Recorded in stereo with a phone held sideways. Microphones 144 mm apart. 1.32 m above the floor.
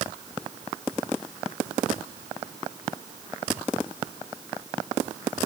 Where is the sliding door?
No sliding door in this recording.